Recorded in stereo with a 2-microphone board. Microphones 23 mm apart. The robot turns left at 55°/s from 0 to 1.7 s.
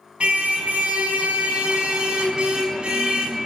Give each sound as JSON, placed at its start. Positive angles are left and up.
{"t": 0.2, "sound": "a car horn", "azimuth_deg": -50, "distance_m": 4.5}